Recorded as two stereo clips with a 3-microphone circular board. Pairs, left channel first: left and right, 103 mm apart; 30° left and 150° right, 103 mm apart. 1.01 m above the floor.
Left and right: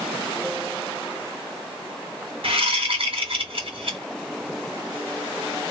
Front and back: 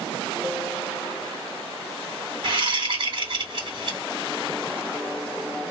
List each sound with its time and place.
2.4 s a whoosh: 115° right, 2 m